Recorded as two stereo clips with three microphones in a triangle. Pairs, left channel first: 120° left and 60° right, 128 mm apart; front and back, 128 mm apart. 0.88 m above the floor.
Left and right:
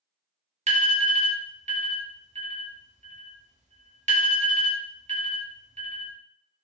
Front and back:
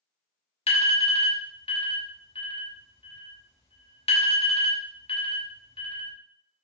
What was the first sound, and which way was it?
An alarm, 40° right.